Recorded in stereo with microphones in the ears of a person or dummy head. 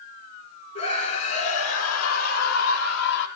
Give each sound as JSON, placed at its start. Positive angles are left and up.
{"t": 0.8, "sound": "a scream", "side_deg": 40, "distance_m": 5.0}